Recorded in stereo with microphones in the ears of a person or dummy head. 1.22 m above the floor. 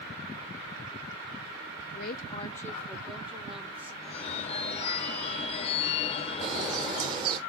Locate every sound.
1.9 s a woman speaking: 50° left (ahead or behind), 0.5 m; by 3.9 s 10° right (ahead or behind), 2 m
4.0 s a phone ringing: 40° left (ahead or behind), 0.5 m
6.4 s a bird: 25° right (ahead or behind), 1.1 m